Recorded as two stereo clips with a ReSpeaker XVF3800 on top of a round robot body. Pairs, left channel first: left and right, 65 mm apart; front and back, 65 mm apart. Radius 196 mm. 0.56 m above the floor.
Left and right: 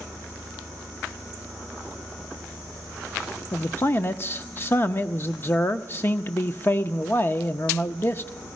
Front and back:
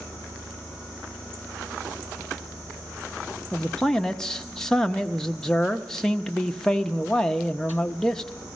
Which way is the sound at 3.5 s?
75° left.